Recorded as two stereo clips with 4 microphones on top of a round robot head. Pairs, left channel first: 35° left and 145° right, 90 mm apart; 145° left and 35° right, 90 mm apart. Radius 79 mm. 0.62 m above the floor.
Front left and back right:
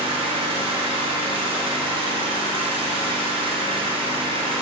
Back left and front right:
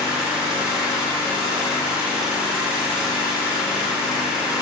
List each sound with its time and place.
0.0 s an engine running: 120° right, 2 m